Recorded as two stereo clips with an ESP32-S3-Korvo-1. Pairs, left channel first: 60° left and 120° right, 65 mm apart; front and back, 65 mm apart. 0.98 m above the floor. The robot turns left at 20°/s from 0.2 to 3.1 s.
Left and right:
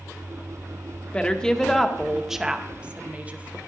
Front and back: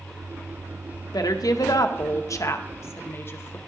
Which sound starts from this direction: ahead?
A woman speaking, at 1.1 s.